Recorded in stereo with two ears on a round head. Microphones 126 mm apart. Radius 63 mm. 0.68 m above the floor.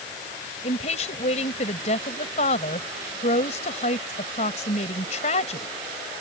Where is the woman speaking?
50° left (ahead or behind).